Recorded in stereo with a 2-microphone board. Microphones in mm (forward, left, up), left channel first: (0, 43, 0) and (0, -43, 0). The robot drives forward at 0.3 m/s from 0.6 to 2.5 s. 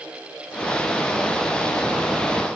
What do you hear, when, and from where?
Only background noise.